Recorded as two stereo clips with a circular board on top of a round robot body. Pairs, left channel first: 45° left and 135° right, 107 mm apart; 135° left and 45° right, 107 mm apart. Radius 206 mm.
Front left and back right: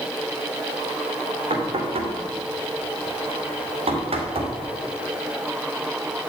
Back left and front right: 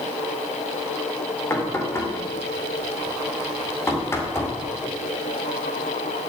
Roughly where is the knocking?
Behind.